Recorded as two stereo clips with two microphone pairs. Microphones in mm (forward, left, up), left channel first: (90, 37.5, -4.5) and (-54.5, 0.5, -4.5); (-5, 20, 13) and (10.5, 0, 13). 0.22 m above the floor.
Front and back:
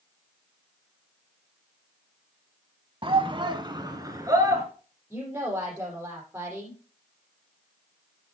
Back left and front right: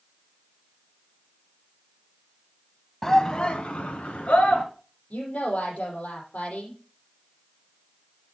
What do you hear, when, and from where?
3.0 s a shout: 175° right, 1.2 m; by 4.6 s 130° left, 3 m
5.1 s a woman speaking: 120° left, 7.5 m